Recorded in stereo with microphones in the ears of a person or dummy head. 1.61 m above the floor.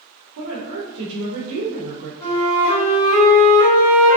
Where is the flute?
25° left (ahead or behind), 1.9 m.